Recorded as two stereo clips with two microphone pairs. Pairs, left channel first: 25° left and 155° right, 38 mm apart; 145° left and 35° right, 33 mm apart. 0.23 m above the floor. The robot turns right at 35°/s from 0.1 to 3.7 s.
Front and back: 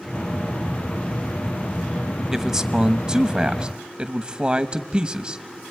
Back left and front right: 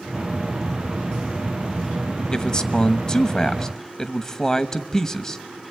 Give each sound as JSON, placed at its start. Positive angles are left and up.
{"t": 2.3, "sound": "a man speaking", "azimuth_deg": 145, "distance_m": 1.0}